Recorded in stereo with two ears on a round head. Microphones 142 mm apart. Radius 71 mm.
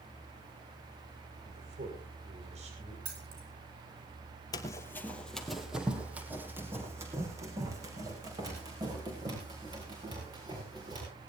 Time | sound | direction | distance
1.4 | a man speaking | 45° right (ahead or behind) | 5.5 m
3.0 | keys jangling | 75° right (ahead or behind) | 5 m
4.5 | running footsteps | 25° left (ahead or behind) | 1.7 m